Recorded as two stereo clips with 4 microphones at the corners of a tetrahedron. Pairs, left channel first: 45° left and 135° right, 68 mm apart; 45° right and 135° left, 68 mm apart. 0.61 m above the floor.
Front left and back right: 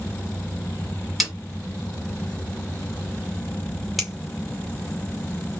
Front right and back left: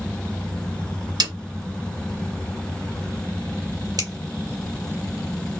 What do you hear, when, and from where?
1.2 s a snare drum: 140° left, 1.5 m
4.0 s a finger snap: 135° left, 2 m